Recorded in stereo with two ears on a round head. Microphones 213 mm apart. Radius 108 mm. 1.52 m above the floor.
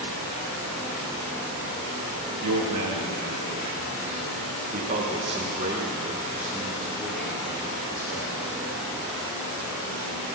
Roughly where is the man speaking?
Right.